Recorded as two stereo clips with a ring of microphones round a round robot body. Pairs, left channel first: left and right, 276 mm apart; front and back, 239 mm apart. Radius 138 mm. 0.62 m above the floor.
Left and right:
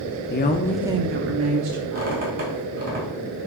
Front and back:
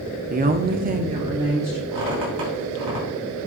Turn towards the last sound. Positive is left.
turn(degrees=-150)